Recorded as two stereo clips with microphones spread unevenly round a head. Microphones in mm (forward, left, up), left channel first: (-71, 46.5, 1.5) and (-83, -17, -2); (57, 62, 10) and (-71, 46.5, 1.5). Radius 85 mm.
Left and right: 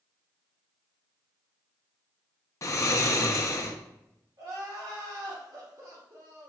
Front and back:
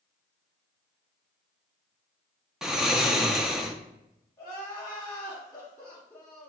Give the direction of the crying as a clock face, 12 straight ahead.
2 o'clock.